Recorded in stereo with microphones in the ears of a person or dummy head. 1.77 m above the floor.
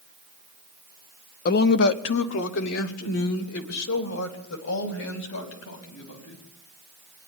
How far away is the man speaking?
About 0.7 m.